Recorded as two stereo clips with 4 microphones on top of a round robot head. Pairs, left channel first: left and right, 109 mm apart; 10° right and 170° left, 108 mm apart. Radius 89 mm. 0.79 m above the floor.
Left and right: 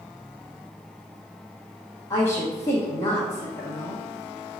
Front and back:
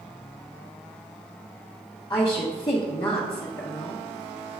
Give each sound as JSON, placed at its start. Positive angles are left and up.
{"t": 2.1, "sound": "a woman speaking", "azimuth_deg": 35, "distance_m": 1.3}